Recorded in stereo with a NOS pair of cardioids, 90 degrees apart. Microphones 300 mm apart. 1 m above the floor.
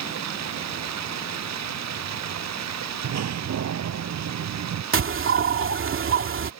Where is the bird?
45° right.